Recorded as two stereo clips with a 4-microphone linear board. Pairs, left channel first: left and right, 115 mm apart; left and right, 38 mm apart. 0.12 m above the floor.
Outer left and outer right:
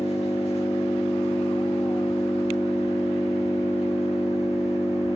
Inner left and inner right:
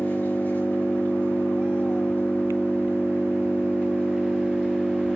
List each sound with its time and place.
0.0 s an engine running: 65° left (ahead or behind), 5 m